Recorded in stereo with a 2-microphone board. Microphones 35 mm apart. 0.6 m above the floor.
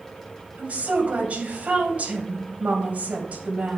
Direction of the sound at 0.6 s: 45° right (ahead or behind).